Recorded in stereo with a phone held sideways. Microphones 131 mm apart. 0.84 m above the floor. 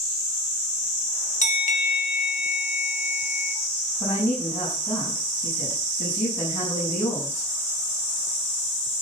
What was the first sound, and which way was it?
A bell, 65° left (ahead or behind).